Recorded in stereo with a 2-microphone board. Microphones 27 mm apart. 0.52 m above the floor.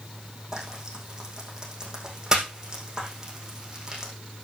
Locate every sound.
0.5 s frying: 20° right (ahead or behind), 4.5 m